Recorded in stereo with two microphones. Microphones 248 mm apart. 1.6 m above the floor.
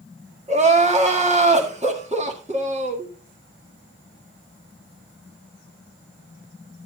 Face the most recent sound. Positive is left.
turn(degrees=-25)  # may be behind; listen again after turning